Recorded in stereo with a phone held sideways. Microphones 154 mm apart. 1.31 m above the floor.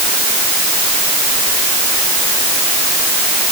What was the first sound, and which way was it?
Only background noise.